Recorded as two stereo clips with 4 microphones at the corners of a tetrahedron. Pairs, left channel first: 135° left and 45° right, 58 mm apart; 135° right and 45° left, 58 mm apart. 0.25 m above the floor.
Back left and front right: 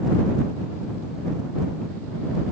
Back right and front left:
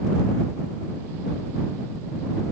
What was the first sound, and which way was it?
Only background noise.